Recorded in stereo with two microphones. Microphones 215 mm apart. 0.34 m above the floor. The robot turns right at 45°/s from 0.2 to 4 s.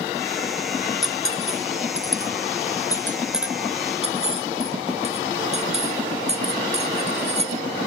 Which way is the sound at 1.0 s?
75° left (ahead or behind).